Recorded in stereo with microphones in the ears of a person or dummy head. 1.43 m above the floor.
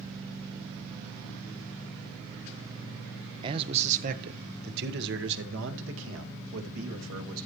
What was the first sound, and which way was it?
A man speaking, 30° right (ahead or behind).